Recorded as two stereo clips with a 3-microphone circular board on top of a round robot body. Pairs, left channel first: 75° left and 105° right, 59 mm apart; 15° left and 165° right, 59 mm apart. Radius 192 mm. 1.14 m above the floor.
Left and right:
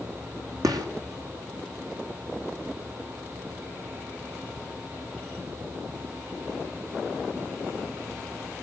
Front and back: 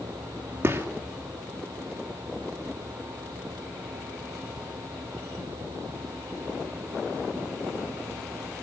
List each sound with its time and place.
0.6 s a gunshot: 110° right, 3 m